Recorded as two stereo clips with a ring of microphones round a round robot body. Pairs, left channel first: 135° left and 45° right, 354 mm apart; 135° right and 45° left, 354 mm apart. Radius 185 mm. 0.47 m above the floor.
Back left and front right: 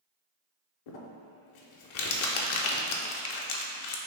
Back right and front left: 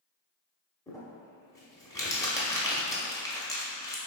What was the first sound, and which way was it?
Crumpling, 145° left.